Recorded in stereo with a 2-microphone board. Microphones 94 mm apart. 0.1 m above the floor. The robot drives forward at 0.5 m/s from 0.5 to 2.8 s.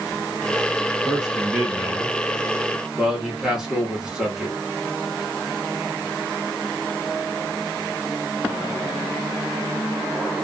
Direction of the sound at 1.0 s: 5° right (ahead or behind).